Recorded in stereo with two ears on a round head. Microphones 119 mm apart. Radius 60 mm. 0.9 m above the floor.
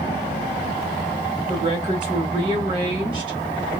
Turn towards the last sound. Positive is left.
turn(degrees=-40)  # may be behind; listen again after turning